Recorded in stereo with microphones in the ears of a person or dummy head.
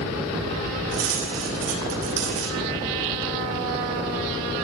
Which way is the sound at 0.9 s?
75° right (ahead or behind).